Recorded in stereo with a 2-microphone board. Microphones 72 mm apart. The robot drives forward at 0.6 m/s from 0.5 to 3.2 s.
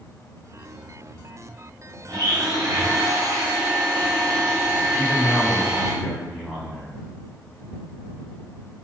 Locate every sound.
2.1 s a blender: 65° right (ahead or behind), 1.5 m; by 5.9 s 55° right (ahead or behind), 1.7 m
4.9 s a man speaking: 5° right (ahead or behind), 1.8 m